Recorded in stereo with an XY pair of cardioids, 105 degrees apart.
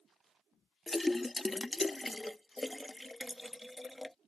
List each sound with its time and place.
0.9 s a splash: 15° left